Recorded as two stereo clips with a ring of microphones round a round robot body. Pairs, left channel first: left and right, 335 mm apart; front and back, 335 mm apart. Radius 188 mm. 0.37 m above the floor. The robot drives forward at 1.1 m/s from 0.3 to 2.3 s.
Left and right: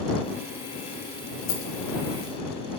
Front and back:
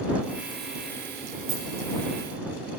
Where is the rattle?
120° left, 2 m; by 1.6 s 125° left, 2.5 m.